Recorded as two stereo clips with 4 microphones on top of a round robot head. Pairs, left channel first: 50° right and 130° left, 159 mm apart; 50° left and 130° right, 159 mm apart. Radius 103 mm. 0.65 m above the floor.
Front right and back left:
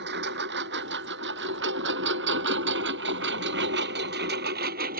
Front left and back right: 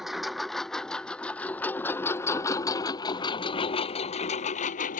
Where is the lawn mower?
145° left; by 5.0 s 90° left.